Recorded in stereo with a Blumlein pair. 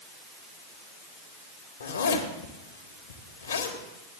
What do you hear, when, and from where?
1.8 s a zipper: 70° left, 1.5 m